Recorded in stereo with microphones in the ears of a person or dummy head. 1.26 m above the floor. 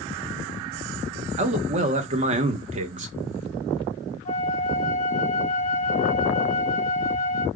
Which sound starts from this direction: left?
A flute, at 4.2 s.